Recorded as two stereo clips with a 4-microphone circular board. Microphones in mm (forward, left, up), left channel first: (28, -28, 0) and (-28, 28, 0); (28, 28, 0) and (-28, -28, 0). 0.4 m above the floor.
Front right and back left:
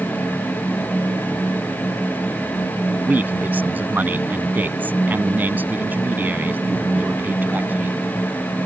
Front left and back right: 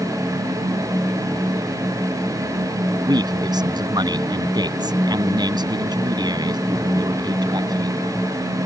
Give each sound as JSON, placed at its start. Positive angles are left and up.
{"t": 3.1, "sound": "a man speaking", "azimuth_deg": -160}